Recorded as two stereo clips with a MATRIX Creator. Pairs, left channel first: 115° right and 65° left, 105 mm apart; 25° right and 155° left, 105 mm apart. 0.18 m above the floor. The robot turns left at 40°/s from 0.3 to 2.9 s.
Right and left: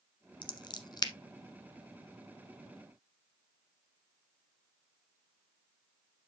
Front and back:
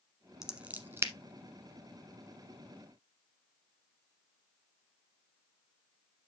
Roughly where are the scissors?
Behind right.